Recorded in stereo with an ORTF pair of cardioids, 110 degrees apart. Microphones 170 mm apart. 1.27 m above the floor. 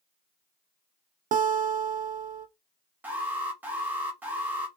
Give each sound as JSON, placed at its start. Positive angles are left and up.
{"t": 1.3, "sound": "a guitar", "azimuth_deg": -50, "distance_m": 0.7}
{"t": 3.0, "sound": "an alarm", "azimuth_deg": -10, "distance_m": 1.2}